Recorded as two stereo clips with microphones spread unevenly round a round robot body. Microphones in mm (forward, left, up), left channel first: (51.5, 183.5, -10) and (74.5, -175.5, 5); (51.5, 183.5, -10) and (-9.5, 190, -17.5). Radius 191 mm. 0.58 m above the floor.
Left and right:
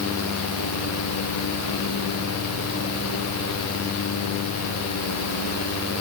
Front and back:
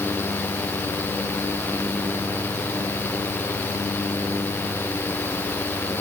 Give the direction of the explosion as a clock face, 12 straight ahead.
I don't hear an explosion.